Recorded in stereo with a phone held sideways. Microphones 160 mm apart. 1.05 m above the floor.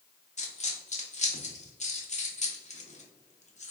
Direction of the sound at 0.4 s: 45° left (ahead or behind).